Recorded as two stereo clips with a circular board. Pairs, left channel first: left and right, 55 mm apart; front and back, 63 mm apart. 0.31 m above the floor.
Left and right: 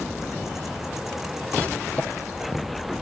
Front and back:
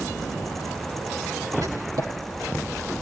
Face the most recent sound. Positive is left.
turn(degrees=155)